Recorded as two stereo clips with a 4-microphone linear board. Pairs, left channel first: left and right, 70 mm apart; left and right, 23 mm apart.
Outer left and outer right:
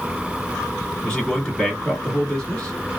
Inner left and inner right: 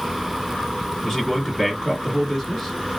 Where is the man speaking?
15° left (ahead or behind), 1.1 m.